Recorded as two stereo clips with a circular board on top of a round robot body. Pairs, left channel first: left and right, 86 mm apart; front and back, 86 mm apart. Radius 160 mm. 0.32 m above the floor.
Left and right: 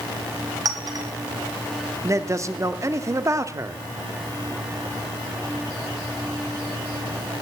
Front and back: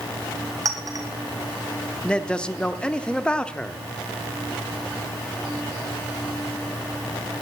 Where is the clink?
135° right, 2 m.